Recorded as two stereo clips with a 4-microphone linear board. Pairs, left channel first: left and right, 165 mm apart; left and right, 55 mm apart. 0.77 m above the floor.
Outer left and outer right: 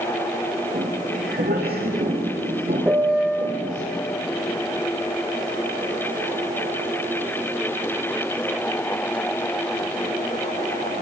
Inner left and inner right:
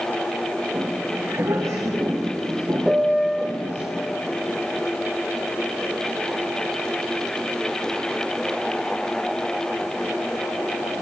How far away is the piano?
About 0.6 m.